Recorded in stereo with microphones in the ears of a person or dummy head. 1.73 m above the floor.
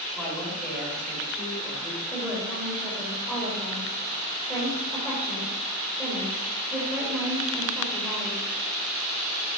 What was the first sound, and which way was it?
A woman speaking, 5° right (ahead or behind).